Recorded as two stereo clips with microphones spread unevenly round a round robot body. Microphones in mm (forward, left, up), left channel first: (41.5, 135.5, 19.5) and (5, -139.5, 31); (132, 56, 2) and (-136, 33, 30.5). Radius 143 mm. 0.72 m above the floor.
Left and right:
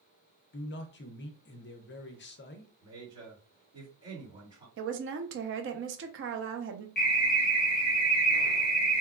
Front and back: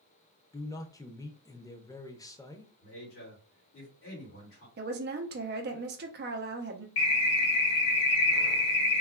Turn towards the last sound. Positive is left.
turn(degrees=25)